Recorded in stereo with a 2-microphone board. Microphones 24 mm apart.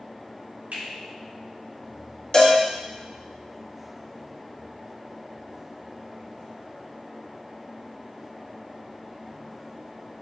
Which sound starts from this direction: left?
A cowbell, at 2.3 s.